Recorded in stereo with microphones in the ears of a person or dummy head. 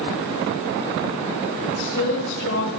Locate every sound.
1.6 s a woman speaking: 60° left (ahead or behind), 3 m; by 2.7 s 70° left (ahead or behind), 3.5 m